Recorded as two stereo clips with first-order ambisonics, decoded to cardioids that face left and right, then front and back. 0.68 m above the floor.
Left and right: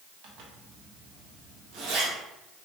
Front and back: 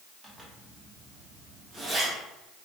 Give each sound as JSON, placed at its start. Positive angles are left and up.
{"t": 0.2, "sound": "a zipper", "azimuth_deg": -95, "distance_m": 0.9}